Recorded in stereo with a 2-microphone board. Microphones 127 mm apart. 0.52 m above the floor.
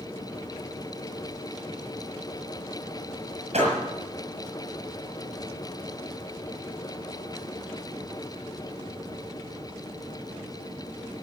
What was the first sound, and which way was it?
A door slam, 60° right (ahead or behind).